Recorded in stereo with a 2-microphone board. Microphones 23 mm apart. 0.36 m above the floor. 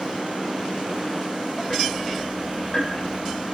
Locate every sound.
1.7 s ticking: 30° left (ahead or behind), 4.5 m